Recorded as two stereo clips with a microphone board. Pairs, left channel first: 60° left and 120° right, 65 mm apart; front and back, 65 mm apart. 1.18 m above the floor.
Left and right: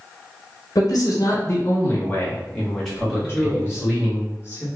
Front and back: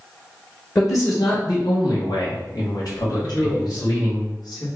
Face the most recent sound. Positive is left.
turn(degrees=5)